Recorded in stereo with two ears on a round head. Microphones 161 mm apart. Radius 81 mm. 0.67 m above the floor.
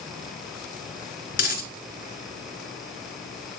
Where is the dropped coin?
55° left (ahead or behind), 2 m.